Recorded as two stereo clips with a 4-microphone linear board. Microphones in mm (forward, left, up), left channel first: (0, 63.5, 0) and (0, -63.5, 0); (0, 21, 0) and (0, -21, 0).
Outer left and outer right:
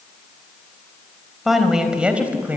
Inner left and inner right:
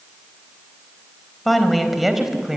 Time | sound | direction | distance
1.4 | a woman speaking | centre (ahead or behind) | 3 m